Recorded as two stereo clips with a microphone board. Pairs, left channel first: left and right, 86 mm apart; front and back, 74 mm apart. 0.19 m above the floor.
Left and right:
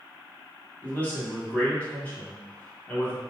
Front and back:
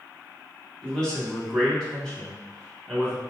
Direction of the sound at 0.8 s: 65° left.